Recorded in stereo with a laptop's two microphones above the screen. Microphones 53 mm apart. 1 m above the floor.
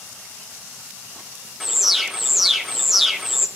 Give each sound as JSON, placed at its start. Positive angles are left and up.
{"t": 1.6, "sound": "an alarm", "side_deg": -5, "distance_m": 0.7}